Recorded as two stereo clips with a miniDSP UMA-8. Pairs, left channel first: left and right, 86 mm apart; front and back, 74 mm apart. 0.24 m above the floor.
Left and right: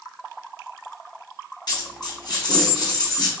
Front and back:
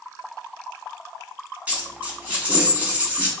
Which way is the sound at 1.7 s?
110° left.